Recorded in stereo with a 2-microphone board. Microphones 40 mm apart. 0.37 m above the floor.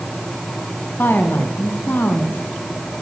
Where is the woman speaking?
65° left (ahead or behind), 3.5 m.